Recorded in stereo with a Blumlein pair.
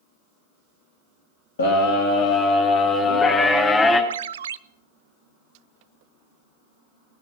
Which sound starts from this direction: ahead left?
A scream, at 1.6 s.